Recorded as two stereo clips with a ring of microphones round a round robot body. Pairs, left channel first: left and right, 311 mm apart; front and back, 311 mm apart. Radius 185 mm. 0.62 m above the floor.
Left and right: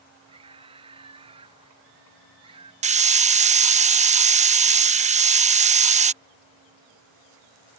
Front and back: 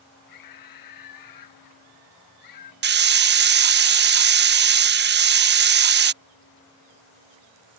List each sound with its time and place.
0.3 s a scream: 15° right
2.8 s a hiss: 145° right